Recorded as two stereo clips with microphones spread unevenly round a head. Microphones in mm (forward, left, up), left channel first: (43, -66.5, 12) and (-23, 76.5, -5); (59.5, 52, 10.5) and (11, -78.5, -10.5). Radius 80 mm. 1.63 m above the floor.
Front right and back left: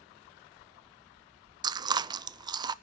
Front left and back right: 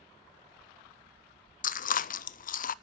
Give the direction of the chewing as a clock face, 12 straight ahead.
10 o'clock.